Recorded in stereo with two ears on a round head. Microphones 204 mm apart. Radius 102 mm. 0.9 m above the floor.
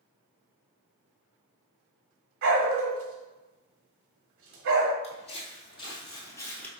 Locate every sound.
2.4 s a dog barking: 60° right (ahead or behind), 1.1 m
5.0 s footsteps: 30° left (ahead or behind), 1.9 m; by 6.7 s 5° left (ahead or behind), 1.0 m